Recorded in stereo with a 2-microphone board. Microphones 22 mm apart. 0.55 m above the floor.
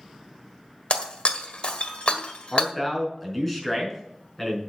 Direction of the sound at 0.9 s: 60° left (ahead or behind).